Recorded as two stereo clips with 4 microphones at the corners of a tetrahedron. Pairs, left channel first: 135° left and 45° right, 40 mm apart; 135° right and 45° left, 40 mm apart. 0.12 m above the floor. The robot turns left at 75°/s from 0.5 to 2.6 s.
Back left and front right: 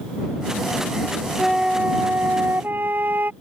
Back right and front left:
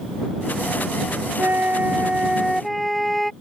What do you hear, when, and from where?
1.4 s a flute: 40° left; by 3.3 s 50° right